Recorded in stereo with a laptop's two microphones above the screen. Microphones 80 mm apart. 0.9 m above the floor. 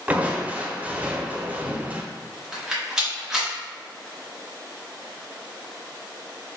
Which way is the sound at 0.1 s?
20° right (ahead or behind).